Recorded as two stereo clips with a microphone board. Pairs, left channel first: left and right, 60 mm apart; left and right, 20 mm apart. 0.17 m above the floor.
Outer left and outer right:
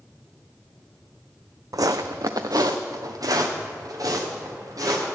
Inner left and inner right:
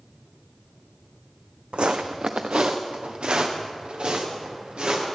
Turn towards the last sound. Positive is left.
turn(degrees=-70)  # may be behind; listen again after turning